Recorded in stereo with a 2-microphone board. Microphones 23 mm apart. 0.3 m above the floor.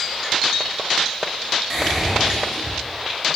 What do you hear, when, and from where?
1.7 s whispering: 25° right (ahead or behind), 0.9 m